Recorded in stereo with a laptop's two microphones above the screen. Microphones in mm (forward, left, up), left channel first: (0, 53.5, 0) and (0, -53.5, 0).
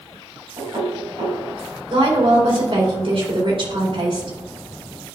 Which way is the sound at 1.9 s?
55° right (ahead or behind).